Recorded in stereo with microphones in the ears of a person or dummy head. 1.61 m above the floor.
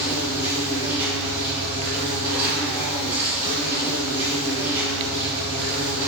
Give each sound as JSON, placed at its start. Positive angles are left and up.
{"t": 0.0, "sound": "an insect", "side_deg": -10, "distance_m": 3.0}